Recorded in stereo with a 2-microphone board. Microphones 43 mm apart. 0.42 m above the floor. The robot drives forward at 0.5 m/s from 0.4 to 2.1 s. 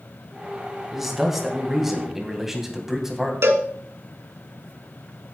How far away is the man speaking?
About 3.5 m.